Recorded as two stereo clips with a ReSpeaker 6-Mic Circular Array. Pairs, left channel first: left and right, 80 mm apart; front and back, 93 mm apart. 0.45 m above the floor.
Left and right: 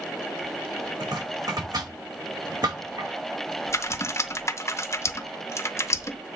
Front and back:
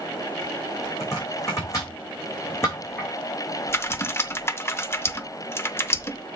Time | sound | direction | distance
1.0 | chopping | 60° right | 5.5 m
3.7 | typing on a keyboard | 50° left | 0.6 m